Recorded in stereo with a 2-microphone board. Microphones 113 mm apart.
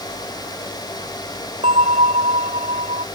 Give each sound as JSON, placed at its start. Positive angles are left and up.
{"t": 1.6, "sound": "a bell", "side_deg": -85}